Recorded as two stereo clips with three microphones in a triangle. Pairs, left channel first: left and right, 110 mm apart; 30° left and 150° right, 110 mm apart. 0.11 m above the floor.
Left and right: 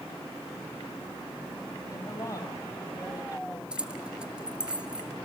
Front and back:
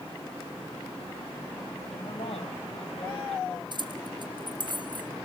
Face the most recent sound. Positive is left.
turn(degrees=-170)